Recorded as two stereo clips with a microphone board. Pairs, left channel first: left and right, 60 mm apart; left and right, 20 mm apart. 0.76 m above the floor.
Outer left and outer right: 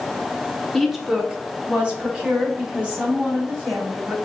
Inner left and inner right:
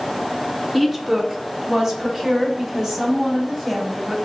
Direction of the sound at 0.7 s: Centre (ahead or behind).